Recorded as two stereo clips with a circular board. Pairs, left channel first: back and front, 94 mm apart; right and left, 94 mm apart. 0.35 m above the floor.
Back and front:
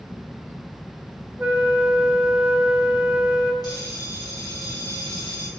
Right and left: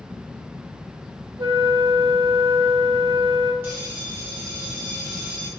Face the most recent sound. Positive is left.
turn(degrees=150)